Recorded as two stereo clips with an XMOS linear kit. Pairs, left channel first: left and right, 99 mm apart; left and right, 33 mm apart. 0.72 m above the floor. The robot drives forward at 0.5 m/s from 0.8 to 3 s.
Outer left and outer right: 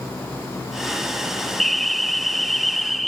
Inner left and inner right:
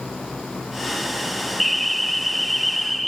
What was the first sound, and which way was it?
An alarm, centre (ahead or behind).